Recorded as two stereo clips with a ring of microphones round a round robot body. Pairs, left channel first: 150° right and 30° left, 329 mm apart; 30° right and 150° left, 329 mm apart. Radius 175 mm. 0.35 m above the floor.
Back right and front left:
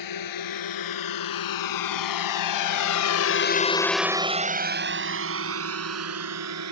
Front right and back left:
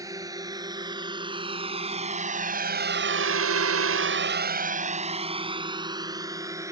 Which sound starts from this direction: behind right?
A drone, at 0.0 s.